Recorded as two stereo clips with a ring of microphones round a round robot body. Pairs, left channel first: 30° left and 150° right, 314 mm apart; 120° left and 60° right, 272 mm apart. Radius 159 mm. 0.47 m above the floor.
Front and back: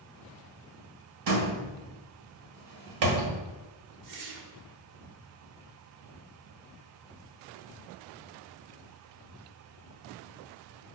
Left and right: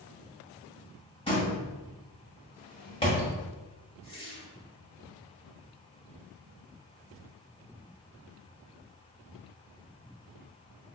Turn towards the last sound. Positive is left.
turn(degrees=-170)